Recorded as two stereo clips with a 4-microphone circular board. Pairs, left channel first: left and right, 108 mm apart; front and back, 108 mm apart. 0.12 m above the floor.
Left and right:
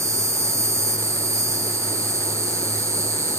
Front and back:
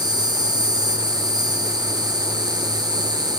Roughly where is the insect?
Behind right.